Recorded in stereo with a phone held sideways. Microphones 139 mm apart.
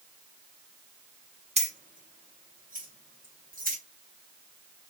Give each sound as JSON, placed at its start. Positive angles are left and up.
{"t": 1.6, "sound": "keys jangling", "side_deg": -50, "distance_m": 0.7}